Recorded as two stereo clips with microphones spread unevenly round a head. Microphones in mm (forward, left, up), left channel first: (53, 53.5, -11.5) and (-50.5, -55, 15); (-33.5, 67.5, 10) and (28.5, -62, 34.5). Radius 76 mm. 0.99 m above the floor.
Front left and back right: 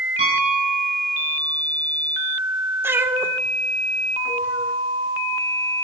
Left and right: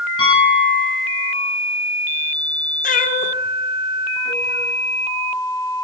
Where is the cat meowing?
150° left, 1.5 m.